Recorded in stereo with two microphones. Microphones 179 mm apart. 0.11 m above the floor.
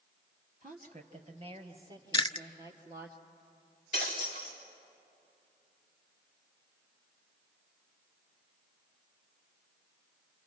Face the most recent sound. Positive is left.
turn(degrees=40)  # may be behind; listen again after turning